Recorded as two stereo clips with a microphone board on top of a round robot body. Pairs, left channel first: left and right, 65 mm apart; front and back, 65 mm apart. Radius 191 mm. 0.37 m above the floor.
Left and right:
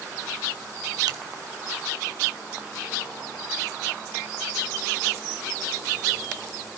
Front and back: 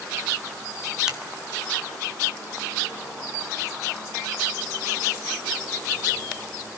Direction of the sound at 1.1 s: 100° right.